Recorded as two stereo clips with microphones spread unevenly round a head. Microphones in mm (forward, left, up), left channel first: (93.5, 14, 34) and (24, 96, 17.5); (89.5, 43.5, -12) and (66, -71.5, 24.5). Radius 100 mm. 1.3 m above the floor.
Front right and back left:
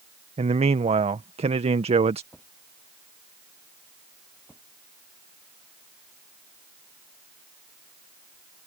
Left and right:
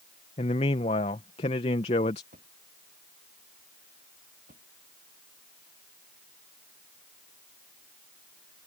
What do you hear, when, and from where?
0.4 s a man speaking: 120° left
2.3 s a drawer: 135° right